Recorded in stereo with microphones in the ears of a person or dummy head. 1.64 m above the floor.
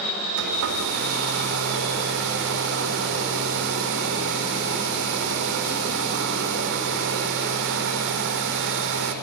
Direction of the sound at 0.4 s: 65° right (ahead or behind).